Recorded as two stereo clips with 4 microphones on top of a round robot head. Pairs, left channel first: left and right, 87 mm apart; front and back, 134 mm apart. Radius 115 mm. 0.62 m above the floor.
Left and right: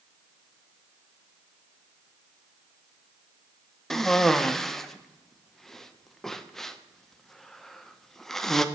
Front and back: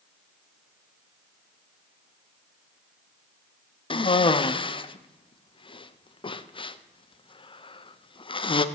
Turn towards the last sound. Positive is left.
turn(degrees=10)